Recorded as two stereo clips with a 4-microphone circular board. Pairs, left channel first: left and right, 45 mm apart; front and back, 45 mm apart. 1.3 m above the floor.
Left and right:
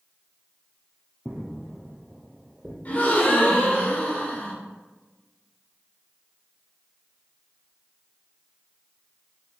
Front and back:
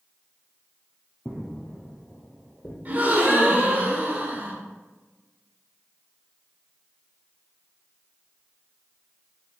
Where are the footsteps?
5° left, 1.4 m.